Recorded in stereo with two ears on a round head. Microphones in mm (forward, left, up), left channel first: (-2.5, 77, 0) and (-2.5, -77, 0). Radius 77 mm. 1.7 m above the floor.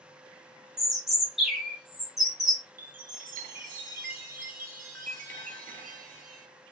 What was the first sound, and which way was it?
A bird, centre (ahead or behind).